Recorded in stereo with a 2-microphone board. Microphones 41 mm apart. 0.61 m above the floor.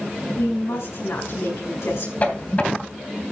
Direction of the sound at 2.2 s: 35° left (ahead or behind).